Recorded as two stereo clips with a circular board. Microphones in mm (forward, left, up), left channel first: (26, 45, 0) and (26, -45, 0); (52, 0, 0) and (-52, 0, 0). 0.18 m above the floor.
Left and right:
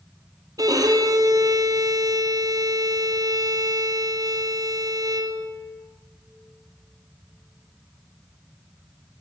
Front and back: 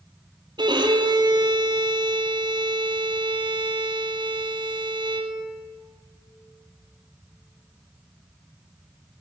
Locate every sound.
0.6 s a violin: 135° right, 1.2 m